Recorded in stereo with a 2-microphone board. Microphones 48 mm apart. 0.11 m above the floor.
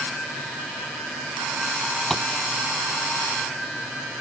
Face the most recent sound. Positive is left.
turn(degrees=5)  # may be behind; listen again after turning